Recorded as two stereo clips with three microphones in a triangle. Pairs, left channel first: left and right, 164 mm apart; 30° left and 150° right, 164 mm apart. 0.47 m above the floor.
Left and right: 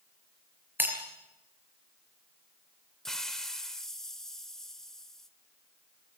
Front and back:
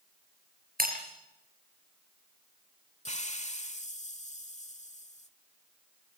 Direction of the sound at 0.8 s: 165° right.